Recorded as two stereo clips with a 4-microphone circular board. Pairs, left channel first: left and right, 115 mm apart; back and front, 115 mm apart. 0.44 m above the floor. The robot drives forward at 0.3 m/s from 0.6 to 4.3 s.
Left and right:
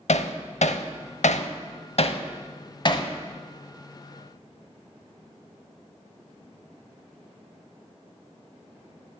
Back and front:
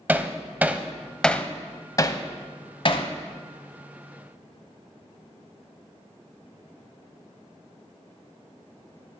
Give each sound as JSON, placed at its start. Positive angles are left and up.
{"t": 0.1, "sound": "hammering", "azimuth_deg": 75, "distance_m": 0.5}